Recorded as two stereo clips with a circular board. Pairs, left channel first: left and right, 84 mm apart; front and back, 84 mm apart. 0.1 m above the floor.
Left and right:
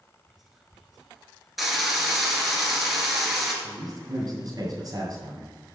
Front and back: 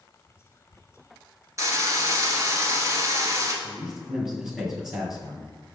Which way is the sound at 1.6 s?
175° right.